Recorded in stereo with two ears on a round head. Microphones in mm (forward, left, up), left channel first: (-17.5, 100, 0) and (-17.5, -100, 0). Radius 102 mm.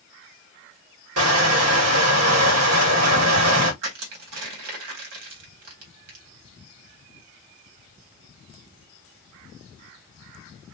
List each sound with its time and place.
1.2 s crushing: 75° right (ahead or behind), 1.7 m
3.8 s crushing: 75° right (ahead or behind), 1.8 m